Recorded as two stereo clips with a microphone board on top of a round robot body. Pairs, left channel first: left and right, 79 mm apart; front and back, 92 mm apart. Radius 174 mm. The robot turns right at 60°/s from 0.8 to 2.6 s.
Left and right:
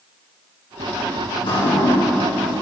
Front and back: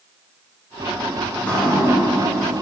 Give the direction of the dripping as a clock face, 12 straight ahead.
10 o'clock.